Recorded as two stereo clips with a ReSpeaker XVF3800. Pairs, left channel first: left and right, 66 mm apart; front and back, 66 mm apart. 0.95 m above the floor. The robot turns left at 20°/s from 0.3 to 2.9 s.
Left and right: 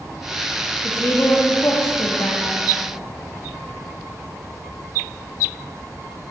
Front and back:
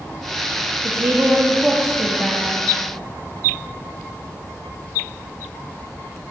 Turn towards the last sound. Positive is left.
turn(degrees=105)